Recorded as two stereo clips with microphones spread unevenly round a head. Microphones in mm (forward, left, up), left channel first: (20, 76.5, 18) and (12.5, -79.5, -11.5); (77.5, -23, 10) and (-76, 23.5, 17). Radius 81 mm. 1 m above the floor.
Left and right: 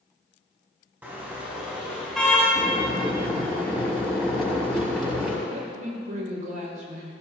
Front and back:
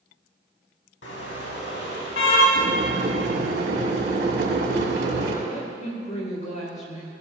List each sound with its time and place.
1.0 s a car horn: 15° right, 4 m; by 2.5 s 5° left, 4.5 m
2.5 s boiling: 175° left, 6 m
5.5 s a woman speaking: 60° right, 5 m